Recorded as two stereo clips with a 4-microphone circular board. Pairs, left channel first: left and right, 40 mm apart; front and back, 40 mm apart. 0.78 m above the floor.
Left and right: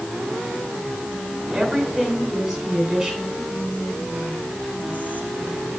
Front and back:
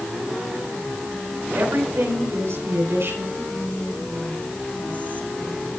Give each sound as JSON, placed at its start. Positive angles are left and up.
{"t": 1.5, "sound": "a woman speaking", "azimuth_deg": -175, "distance_m": 8.5}
{"t": 3.4, "sound": "whispering", "azimuth_deg": 50, "distance_m": 3.0}